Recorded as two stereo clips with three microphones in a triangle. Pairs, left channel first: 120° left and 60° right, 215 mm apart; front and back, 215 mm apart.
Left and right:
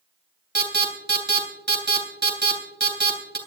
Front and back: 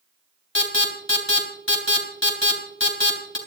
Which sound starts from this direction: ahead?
An alarm, at 0.6 s.